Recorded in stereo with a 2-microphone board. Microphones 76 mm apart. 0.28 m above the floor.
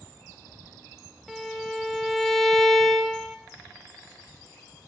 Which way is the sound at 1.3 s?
Centre (ahead or behind).